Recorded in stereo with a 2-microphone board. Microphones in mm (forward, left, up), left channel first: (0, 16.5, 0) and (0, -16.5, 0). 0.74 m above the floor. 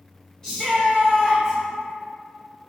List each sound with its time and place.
0.4 s a shout: 15° left (ahead or behind), 1.2 m